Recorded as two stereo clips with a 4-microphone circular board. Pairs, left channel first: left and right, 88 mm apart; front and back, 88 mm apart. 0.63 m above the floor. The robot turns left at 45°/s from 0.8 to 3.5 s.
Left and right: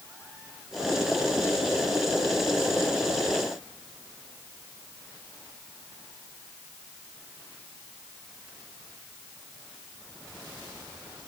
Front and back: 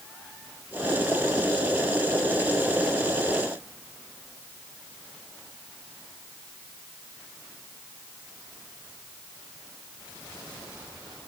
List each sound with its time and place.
Only background noise.